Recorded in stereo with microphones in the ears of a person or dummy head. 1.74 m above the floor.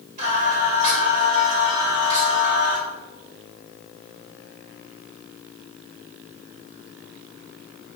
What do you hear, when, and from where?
0.2 s singing: 40° right (ahead or behind), 2 m